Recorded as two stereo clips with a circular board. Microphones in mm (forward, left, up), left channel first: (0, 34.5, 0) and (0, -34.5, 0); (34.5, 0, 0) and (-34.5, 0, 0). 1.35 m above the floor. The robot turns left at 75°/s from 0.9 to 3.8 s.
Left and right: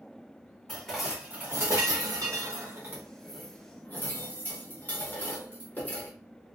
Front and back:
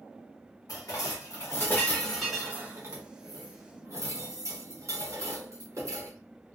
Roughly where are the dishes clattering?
Ahead.